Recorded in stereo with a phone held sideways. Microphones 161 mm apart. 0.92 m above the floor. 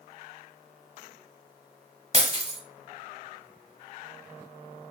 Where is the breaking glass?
35° right (ahead or behind), 1.1 m.